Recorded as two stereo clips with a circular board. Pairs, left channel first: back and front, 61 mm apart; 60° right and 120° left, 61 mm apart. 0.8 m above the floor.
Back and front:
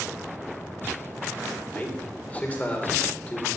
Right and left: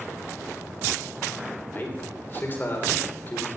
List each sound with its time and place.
1.7 s a man speaking: 115° right, 3 m